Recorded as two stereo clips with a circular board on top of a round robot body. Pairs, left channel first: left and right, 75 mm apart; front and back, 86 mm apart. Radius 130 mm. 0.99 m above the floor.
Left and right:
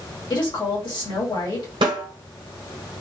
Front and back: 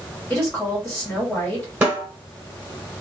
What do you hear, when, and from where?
0.3 s a woman speaking: 80° left, 1.8 m
1.8 s a snare drum: 110° right, 1.3 m